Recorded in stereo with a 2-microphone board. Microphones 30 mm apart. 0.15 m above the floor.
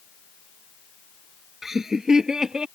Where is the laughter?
15° right (ahead or behind); by 2.6 s 25° right (ahead or behind).